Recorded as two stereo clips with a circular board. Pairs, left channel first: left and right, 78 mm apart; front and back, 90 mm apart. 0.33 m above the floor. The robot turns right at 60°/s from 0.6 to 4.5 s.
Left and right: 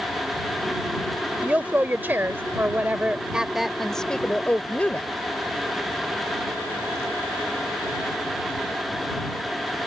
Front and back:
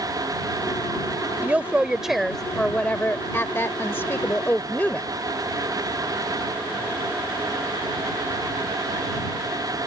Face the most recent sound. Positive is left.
turn(degrees=45)